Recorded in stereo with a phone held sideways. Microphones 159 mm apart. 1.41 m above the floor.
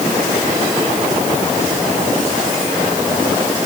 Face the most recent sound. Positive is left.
No sound to turn to.